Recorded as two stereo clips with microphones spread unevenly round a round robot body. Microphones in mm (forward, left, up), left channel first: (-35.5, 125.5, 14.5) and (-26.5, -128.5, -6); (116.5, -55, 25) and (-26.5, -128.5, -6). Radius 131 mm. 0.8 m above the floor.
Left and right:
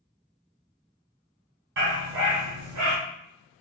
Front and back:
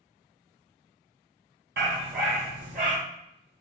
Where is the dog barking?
135° right, 1.8 m; by 3.0 s 110° right, 1.6 m.